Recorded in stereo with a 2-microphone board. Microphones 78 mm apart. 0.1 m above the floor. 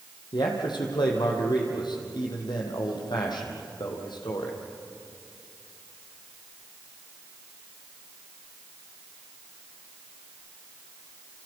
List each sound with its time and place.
0.3 s a man speaking: 70° left (ahead or behind), 4.5 m